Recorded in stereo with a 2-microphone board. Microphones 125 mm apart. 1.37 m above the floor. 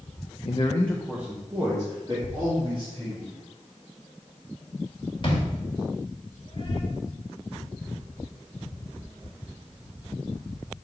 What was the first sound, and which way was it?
A man speaking, 50° left (ahead or behind).